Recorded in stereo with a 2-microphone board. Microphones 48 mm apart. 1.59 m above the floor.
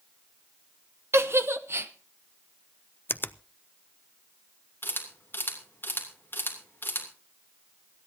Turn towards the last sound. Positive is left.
turn(degrees=45)  # may be behind; listen again after turning